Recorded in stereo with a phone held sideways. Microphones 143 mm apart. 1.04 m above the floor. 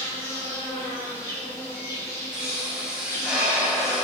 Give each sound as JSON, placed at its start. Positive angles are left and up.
{"t": 0.0, "sound": "an insect", "side_deg": 20, "distance_m": 1.0}
{"t": 2.3, "sound": "a pop", "side_deg": -5, "distance_m": 0.9}